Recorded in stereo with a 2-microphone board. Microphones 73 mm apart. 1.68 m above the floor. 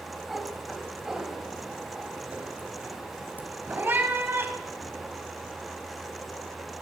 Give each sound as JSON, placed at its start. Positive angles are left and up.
{"t": 0.3, "sound": "a cat meowing", "side_deg": 0, "distance_m": 4.5}